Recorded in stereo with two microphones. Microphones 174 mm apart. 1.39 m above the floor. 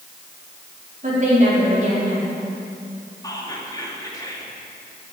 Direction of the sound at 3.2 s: 20° left (ahead or behind).